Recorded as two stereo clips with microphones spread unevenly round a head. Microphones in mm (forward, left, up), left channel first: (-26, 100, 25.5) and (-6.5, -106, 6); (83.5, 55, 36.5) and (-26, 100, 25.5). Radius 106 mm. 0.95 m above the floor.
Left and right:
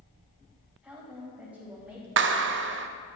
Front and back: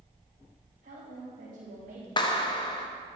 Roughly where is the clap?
Right.